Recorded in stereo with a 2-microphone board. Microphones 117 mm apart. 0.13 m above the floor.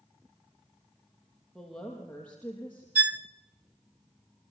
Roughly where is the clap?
I don't hear a clap.